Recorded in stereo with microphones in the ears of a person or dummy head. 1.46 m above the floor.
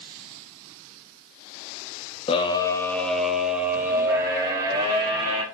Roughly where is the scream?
Left.